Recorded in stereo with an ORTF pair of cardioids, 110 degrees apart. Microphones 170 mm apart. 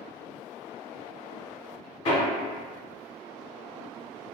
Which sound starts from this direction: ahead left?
Hammering, at 2.0 s.